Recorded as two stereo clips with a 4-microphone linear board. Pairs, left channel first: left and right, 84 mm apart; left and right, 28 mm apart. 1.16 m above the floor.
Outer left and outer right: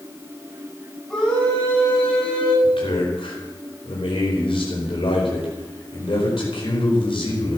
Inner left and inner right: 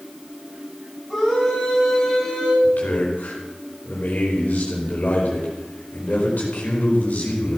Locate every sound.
1.1 s a scream: 10° left (ahead or behind), 9.5 m; by 2.5 s 15° left (ahead or behind), 9 m
2.6 s a man speaking: 75° left (ahead or behind), 4.5 m